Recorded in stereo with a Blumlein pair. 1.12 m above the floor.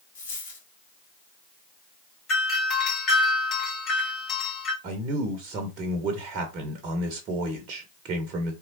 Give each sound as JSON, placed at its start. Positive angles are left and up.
{"t": 0.1, "sound": "a dropped coin", "azimuth_deg": 65, "distance_m": 1.5}
{"t": 2.3, "sound": "a doorbell", "azimuth_deg": 30, "distance_m": 1.6}
{"t": 4.8, "sound": "a man speaking", "azimuth_deg": -35, "distance_m": 0.8}